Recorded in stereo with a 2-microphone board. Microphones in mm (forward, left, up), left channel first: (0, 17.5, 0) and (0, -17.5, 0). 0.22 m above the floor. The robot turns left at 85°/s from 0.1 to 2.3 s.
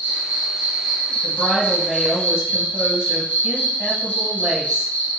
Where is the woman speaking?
45° left, 1.1 m; by 4.9 s 45° right, 1.1 m.